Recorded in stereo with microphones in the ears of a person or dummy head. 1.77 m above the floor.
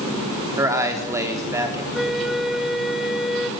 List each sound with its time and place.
0.6 s a man speaking: 15° right (ahead or behind), 4.5 m
1.9 s a flute: centre (ahead or behind), 1.5 m